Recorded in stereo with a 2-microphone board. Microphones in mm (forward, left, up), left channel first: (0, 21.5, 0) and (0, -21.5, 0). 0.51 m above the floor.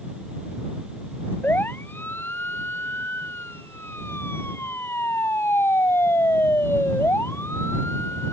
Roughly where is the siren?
Left.